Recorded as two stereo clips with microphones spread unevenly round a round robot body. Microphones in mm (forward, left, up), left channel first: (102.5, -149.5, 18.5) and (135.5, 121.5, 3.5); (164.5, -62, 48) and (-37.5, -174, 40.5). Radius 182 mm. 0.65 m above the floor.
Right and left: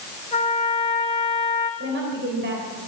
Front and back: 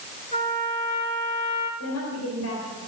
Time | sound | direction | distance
0.3 | a trumpet | 30° right | 6.5 m
1.8 | a woman speaking | 40° left | 3.5 m